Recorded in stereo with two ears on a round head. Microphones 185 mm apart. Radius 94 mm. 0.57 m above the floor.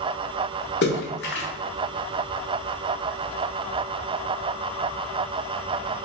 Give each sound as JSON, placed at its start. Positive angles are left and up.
{"t": 0.8, "sound": "a splash", "side_deg": 55, "distance_m": 0.7}